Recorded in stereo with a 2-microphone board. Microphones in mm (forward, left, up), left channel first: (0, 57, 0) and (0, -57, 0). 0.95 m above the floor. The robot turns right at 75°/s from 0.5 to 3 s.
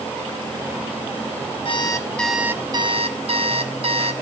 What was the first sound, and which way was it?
An alarm clock, 130° left.